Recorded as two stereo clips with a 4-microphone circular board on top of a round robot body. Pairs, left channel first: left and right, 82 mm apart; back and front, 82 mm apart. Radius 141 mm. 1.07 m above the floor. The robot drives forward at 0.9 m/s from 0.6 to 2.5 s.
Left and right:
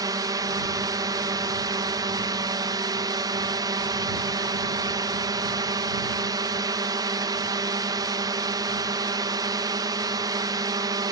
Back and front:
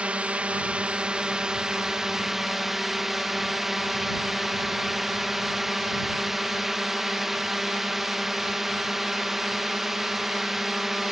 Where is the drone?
70° right; by 11.1 s 85° right.